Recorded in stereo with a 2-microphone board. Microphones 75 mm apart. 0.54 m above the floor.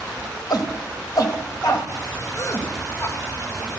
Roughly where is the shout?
Left.